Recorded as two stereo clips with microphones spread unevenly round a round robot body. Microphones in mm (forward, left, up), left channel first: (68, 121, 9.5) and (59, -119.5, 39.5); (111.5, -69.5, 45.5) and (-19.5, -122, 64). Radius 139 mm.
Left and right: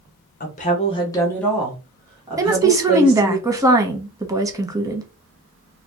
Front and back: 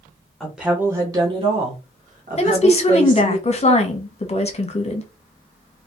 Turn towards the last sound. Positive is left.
turn(degrees=-15)